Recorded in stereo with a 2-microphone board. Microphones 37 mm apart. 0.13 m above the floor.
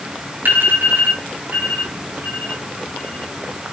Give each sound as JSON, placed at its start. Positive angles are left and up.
{"t": 0.5, "sound": "an alarm", "side_deg": -65, "distance_m": 8.5}